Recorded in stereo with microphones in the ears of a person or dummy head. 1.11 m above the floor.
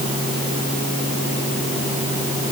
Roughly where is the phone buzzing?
No phone buzzing in this recording.